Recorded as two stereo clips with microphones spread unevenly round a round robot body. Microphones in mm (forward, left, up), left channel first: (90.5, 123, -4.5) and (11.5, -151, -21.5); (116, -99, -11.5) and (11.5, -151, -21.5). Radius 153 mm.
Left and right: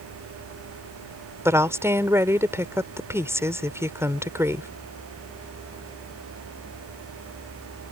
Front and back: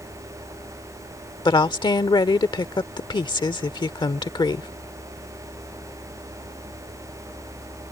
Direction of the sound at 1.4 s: 25° right.